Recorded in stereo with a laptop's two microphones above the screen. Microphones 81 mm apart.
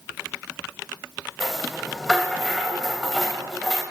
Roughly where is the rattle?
Centre.